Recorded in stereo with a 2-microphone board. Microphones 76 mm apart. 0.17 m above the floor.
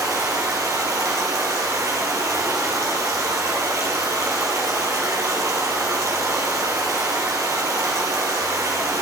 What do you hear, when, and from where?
0.0 s running water: 45° right (ahead or behind), 3 m